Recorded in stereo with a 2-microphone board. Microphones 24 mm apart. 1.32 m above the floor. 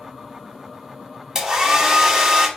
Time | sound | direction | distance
1.4 | a hair dryer | 20° right (ahead or behind) | 1.1 m